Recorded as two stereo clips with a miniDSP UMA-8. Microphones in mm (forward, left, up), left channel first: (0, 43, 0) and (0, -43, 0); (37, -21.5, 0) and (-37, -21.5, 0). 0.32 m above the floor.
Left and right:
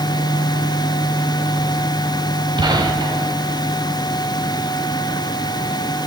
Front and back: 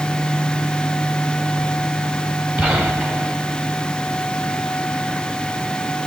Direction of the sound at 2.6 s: 110° right.